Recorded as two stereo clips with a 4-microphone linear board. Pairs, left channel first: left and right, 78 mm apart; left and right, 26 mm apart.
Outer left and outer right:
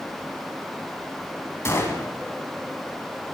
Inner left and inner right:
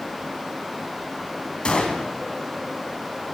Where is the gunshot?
35° left (ahead or behind), 1.1 m.